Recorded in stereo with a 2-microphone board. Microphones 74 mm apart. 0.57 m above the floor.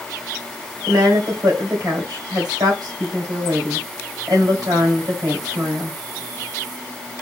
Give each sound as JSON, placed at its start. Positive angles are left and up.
{"t": 0.9, "sound": "a woman speaking", "side_deg": -60, "distance_m": 2.5}